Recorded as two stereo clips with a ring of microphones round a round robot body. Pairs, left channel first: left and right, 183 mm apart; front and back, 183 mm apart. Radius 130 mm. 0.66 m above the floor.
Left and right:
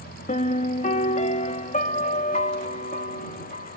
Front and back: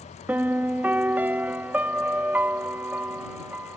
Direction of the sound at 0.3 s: 105° left.